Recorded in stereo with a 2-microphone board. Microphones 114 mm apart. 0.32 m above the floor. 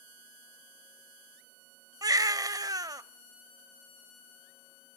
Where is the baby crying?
35° right (ahead or behind), 0.5 m.